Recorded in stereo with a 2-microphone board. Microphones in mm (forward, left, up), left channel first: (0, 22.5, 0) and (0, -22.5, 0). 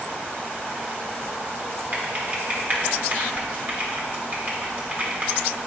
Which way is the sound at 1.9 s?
40° right (ahead or behind).